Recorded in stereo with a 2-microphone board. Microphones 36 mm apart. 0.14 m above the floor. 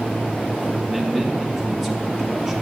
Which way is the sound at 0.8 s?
5° right (ahead or behind).